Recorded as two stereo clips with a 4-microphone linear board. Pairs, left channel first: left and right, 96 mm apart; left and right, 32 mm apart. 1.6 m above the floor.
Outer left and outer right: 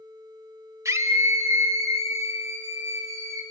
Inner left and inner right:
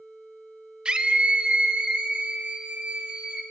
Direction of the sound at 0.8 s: 30° right (ahead or behind).